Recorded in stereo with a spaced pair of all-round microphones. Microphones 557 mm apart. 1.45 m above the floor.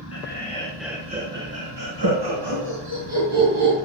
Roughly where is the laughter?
Left.